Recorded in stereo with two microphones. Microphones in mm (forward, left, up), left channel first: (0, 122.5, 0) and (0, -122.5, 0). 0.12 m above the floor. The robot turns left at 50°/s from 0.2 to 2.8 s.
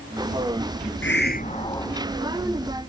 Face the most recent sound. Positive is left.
turn(degrees=-35)